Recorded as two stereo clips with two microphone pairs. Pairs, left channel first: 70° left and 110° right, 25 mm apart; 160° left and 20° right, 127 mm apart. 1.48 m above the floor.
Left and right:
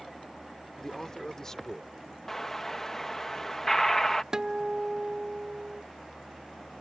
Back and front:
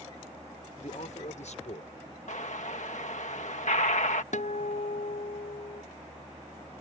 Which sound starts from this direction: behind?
A guitar, at 4.3 s.